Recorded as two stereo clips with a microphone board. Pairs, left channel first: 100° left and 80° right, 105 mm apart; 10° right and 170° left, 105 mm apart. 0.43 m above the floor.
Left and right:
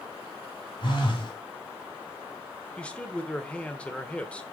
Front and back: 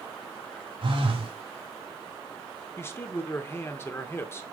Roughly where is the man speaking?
Ahead left.